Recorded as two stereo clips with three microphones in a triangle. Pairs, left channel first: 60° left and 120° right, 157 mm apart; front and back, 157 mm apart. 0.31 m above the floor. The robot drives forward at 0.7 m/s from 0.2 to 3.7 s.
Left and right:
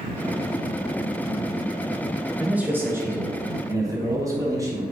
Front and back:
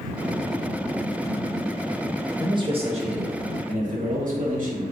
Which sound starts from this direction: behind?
A man speaking, at 2.4 s.